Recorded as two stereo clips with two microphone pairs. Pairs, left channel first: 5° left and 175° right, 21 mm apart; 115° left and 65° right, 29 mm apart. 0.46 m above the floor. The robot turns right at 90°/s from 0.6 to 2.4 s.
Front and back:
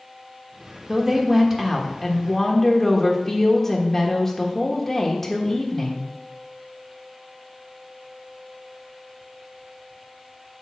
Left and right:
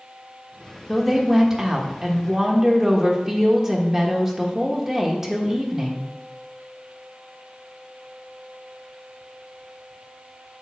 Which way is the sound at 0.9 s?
165° right.